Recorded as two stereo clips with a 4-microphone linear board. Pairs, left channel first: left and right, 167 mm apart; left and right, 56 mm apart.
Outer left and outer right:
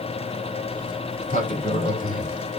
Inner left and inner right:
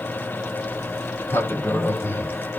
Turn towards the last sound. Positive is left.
turn(degrees=50)  # may be behind; listen again after turning